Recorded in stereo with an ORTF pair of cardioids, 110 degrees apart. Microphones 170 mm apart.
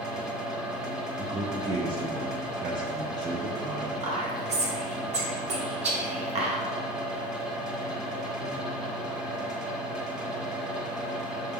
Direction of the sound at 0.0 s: 5° right.